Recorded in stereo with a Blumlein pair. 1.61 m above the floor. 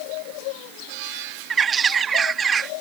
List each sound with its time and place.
1.5 s a bird: 20° right